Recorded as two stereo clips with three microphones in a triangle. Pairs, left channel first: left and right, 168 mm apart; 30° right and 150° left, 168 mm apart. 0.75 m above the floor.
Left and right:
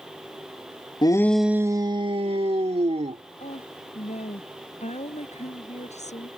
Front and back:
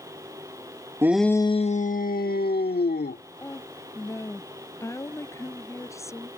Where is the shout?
100° left; by 3.2 s 40° right.